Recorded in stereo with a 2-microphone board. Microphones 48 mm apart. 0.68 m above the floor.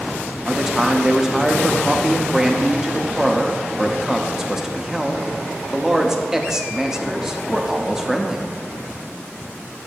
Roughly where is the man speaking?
Centre.